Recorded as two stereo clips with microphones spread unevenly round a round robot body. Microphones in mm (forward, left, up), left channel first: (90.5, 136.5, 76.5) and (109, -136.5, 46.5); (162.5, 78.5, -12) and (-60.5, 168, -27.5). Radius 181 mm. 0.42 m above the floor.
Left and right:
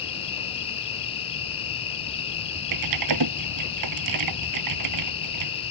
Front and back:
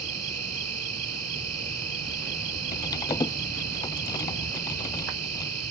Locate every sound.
0.0 s an insect: 165° left
2.7 s typing on a keyboard: 100° right